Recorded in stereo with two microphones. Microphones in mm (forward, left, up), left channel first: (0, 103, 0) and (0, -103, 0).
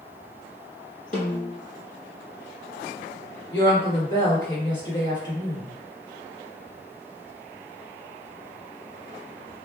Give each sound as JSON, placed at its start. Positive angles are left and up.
{"t": 1.1, "sound": "a snare drum", "side_deg": 40, "distance_m": 1.6}
{"t": 3.5, "sound": "a woman speaking", "side_deg": 25, "distance_m": 1.8}